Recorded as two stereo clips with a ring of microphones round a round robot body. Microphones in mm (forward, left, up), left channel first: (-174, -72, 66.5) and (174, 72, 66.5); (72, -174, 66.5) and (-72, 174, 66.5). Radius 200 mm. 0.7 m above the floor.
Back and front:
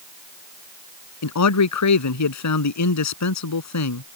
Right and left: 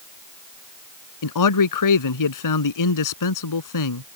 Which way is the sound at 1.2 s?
110° right.